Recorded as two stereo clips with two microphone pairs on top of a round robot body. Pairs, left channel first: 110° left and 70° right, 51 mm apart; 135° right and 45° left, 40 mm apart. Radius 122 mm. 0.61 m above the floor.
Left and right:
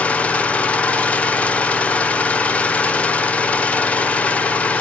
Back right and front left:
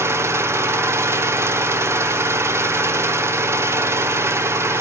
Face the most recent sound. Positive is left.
turn(degrees=50)